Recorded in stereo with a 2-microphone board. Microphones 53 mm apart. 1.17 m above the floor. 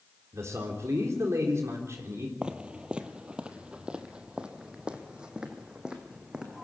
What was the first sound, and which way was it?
A man speaking, 65° right (ahead or behind).